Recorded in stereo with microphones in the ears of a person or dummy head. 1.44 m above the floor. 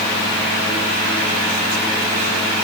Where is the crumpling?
No crumpling in this recording.